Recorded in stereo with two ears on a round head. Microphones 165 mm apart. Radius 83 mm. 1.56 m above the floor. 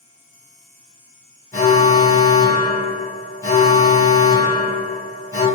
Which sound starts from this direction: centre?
An alarm, at 1.5 s.